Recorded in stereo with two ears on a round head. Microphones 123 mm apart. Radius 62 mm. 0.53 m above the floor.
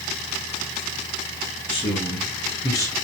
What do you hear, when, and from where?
1.7 s a man speaking: 40° left (ahead or behind), 4.5 m; by 2.9 s 25° left (ahead or behind), 3.5 m